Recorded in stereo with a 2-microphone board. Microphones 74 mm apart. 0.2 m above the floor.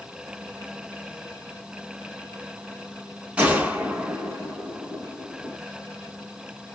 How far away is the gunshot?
About 1.2 m.